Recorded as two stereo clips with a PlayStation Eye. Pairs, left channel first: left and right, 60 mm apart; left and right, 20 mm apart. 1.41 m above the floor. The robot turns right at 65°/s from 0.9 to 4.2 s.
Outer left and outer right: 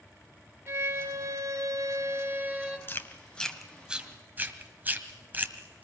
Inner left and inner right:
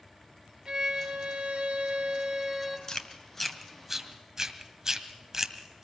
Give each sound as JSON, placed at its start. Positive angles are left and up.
{"t": 0.7, "sound": "a violin", "azimuth_deg": -125, "distance_m": 2.5}
{"t": 2.9, "sound": "chewing", "side_deg": 35, "distance_m": 1.8}